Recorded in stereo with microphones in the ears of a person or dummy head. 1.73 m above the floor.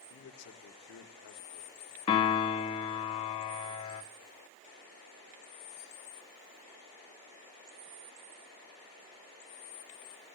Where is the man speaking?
65° left (ahead or behind), 1.0 m.